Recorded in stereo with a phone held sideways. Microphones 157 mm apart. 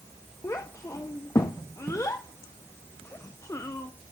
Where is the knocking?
No knocking in this recording.